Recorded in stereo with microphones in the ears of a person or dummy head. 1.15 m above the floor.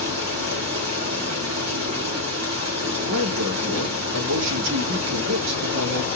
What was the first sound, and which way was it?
Running water, 80° right.